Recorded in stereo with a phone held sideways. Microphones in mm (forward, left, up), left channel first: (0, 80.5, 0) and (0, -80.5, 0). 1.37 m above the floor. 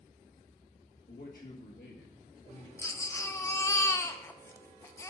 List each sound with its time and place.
1.1 s a man speaking: 85° left, 2.0 m; by 2.7 s 50° left (ahead or behind), 1.2 m
2.8 s a baby crying: 20° left (ahead or behind), 0.6 m